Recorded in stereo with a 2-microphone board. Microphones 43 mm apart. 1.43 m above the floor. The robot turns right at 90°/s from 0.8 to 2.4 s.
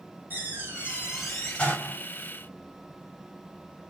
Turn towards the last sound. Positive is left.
turn(degrees=100)